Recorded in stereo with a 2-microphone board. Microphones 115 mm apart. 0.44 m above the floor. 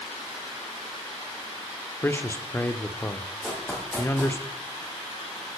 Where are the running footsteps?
5° left (ahead or behind), 4.5 m.